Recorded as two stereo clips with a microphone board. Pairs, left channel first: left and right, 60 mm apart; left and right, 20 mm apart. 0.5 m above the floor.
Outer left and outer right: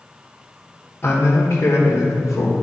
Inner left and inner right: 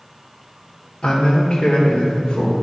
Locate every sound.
1.0 s a man speaking: 35° left (ahead or behind), 1.2 m; by 2.5 s 55° left (ahead or behind), 1.6 m